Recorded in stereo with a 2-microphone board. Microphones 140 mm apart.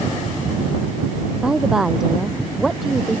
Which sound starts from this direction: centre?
A woman speaking, at 1.4 s.